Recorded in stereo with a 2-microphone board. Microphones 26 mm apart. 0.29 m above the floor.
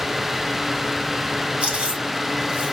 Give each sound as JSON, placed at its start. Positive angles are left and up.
{"t": 1.6, "sound": "chewing", "side_deg": -45, "distance_m": 1.9}